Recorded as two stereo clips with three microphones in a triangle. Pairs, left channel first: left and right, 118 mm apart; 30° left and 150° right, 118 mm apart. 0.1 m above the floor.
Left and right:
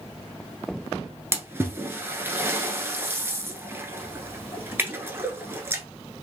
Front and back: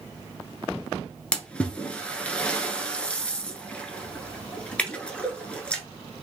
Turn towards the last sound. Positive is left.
turn(degrees=-40)